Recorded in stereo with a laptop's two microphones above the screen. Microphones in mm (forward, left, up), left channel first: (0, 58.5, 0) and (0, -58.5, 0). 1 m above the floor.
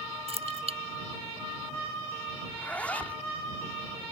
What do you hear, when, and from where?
0.3 s keys jangling: 60° right (ahead or behind)
2.5 s a zipper: 10° left (ahead or behind)